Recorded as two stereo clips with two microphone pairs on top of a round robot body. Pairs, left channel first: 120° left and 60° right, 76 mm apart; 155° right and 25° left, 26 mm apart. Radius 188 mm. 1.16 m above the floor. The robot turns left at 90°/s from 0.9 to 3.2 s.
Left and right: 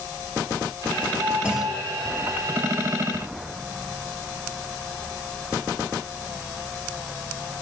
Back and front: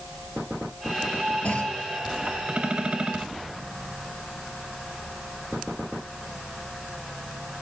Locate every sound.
1.4 s a clunk: 130° right, 2 m; by 1.8 s 165° right, 2 m